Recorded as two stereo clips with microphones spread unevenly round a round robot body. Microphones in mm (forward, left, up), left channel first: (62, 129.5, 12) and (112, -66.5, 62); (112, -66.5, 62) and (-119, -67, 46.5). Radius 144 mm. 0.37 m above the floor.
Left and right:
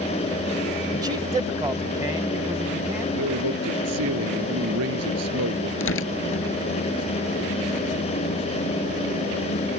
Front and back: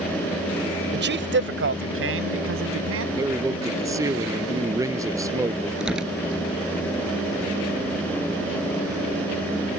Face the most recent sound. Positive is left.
turn(degrees=95)